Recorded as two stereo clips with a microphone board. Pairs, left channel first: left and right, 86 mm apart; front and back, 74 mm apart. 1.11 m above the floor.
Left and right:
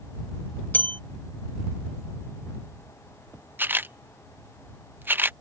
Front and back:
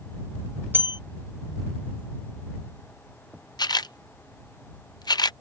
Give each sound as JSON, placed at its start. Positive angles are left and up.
{"t": 0.7, "sound": "a bell", "azimuth_deg": 145}
{"t": 3.6, "sound": "a camera shutter", "azimuth_deg": -25}